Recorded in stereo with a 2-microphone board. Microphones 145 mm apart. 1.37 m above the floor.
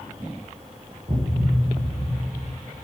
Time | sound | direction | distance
1.1 | a thud | 50° right (ahead or behind) | 5 m